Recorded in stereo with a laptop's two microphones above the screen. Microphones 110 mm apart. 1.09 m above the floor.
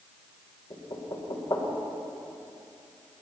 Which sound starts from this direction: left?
Knocking, at 0.7 s.